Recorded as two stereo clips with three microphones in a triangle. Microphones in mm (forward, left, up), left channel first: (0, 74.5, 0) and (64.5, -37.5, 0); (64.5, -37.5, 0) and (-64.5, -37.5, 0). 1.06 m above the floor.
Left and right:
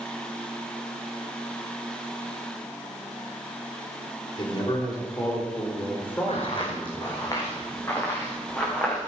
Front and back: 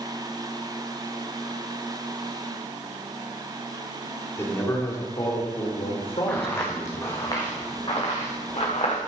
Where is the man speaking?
70° left, 3.5 m; by 7.1 s 35° left, 5.5 m.